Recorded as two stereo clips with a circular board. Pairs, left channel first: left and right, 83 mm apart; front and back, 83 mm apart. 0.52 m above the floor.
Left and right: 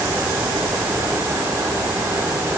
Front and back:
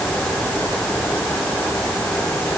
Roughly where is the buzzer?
No buzzer in this recording.